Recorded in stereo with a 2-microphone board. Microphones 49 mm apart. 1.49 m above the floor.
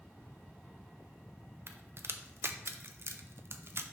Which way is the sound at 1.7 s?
55° right (ahead or behind).